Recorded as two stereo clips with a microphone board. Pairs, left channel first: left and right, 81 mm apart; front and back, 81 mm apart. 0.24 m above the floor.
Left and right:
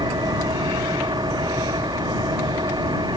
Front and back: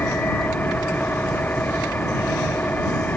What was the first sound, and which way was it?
An engine running, 70° right.